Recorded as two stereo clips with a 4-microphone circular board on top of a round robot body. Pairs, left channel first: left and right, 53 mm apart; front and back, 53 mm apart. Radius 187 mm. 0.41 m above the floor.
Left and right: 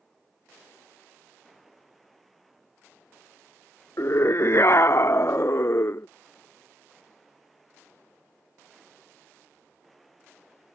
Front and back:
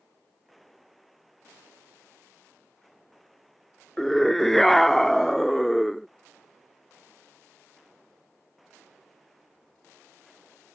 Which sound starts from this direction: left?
A scream, at 4.0 s.